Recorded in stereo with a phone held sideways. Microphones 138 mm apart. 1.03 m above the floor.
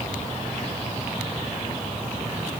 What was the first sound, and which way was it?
Only background noise.